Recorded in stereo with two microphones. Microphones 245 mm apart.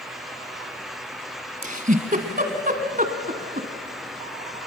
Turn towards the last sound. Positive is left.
turn(degrees=-35)  # may be behind; listen again after turning